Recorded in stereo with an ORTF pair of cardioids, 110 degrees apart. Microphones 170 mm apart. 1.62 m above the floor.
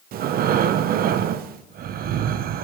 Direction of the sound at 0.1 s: 65° right.